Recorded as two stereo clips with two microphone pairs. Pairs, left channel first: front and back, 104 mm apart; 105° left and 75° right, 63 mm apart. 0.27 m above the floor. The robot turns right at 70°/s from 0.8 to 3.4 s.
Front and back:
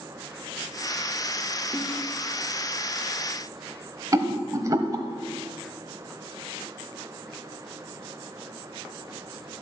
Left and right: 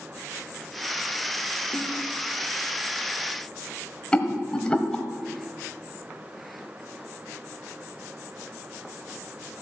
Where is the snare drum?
120° right, 4 m; by 1.9 s 105° right, 4 m.